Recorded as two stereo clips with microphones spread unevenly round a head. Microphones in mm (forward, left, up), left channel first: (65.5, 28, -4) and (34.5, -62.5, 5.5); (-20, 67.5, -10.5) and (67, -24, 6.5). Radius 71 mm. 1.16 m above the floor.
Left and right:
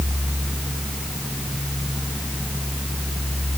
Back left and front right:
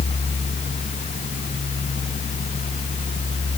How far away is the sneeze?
No sneeze in this recording.